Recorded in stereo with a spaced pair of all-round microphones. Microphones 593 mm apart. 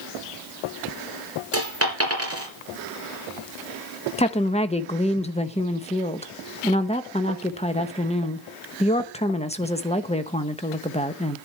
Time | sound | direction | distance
1.5 | a dropped coin | 20° right (ahead or behind) | 3.5 m
4.2 | a woman speaking | 10° left (ahead or behind) | 1.0 m